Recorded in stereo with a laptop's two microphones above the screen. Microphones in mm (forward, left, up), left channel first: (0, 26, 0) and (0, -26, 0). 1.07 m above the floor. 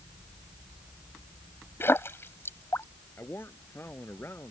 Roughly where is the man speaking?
Left.